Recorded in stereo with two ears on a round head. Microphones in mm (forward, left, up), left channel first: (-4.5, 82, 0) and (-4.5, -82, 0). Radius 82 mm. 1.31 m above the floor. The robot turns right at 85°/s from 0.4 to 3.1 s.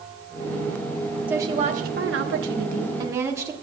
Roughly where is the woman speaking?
Behind.